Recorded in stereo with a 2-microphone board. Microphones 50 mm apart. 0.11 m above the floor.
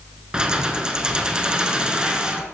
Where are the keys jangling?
15° right (ahead or behind), 0.8 m.